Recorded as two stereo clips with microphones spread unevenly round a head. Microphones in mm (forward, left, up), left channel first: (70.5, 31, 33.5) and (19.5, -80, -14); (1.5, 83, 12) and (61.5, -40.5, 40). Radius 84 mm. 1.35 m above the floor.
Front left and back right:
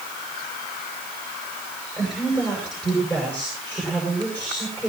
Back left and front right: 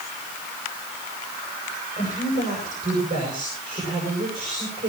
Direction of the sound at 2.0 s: 10° right.